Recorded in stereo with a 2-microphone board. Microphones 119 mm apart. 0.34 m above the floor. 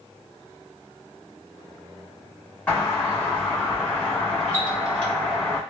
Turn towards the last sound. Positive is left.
turn(degrees=15)  # may be behind; listen again after turning